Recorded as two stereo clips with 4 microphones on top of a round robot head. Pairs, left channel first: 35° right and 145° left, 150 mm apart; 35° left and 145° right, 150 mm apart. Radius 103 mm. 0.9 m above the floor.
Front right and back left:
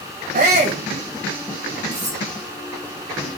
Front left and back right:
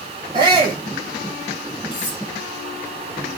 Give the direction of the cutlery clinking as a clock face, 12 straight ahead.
9 o'clock.